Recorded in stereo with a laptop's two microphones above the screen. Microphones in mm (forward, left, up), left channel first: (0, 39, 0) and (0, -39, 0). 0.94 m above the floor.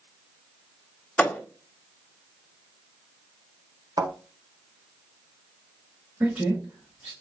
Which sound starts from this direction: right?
A thud, at 4.0 s.